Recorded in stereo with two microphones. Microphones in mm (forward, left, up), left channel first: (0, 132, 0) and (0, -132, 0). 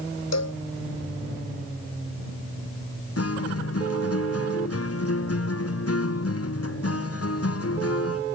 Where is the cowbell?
75° left (ahead or behind).